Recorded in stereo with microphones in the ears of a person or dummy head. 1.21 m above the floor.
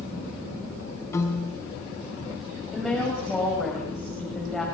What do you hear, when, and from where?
1.1 s a piano: 20° left (ahead or behind), 5.5 m
2.7 s a woman speaking: 5° left (ahead or behind), 5.5 m